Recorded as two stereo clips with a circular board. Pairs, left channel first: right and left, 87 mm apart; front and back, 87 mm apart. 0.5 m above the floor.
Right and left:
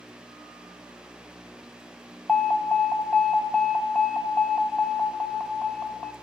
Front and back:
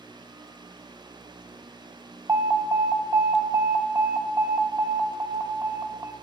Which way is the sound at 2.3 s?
160° right.